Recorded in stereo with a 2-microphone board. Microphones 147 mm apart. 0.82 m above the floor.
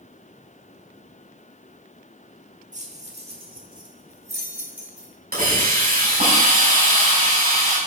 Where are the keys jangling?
55° right (ahead or behind), 1.4 m; by 5.1 s 5° right (ahead or behind), 1.8 m.